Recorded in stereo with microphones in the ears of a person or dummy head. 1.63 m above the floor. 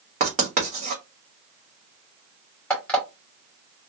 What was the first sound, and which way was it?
Writing, 45° right (ahead or behind).